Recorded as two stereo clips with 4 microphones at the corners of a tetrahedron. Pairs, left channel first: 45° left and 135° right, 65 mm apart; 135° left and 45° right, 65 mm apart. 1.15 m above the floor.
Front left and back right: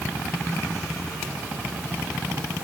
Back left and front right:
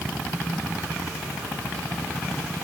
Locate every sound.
Only background noise.